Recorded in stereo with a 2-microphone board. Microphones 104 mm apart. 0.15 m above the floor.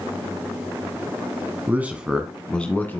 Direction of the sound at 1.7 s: 20° right (ahead or behind).